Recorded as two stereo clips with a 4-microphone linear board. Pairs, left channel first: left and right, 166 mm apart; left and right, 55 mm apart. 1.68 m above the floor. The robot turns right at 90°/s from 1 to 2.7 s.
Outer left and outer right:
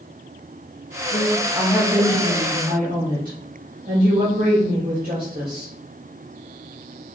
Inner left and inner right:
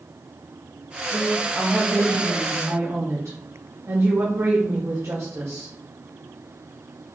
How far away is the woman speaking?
About 1.6 m.